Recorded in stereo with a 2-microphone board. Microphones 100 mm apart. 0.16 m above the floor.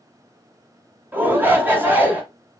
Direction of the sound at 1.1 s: 20° right (ahead or behind).